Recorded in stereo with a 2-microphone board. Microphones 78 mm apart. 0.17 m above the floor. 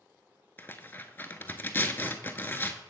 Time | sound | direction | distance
0.6 | tearing paper | 25° left (ahead or behind) | 0.6 m